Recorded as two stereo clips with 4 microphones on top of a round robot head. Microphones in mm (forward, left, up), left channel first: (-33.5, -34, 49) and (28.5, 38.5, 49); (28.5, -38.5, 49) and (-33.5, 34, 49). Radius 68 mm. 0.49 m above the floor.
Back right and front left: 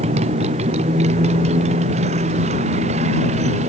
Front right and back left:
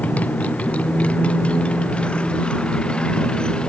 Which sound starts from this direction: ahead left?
A motorcycle, at 0.0 s.